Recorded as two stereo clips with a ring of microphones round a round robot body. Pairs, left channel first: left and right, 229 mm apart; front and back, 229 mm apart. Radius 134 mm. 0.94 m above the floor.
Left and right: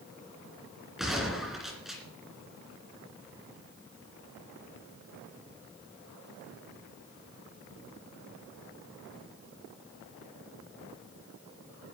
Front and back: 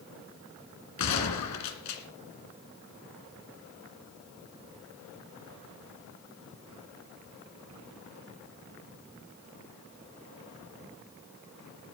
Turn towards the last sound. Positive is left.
turn(degrees=0)